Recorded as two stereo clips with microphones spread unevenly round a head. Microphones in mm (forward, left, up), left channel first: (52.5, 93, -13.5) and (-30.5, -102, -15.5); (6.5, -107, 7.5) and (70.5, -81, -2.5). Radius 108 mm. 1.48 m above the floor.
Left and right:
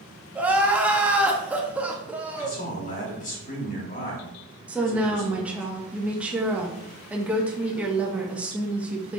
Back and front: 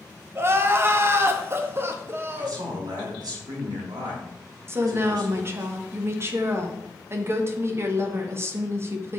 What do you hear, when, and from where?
0.3 s crying: 30° right, 1.4 m
2.3 s a man speaking: 20° left, 4 m
4.7 s a woman speaking: 30° right, 1.7 m